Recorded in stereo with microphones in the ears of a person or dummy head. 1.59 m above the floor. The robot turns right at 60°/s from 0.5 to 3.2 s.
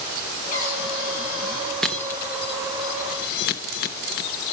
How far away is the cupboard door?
About 7.5 m.